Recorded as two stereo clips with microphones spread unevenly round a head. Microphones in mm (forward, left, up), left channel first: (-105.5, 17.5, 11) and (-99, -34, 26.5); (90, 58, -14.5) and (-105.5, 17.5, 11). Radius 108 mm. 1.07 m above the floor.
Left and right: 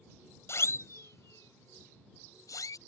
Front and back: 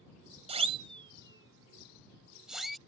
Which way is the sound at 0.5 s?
135° left.